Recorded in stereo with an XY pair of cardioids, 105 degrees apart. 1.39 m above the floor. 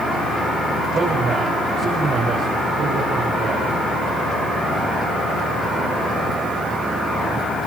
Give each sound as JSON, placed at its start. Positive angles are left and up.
{"t": 0.9, "sound": "a man speaking", "azimuth_deg": -50, "distance_m": 7.5}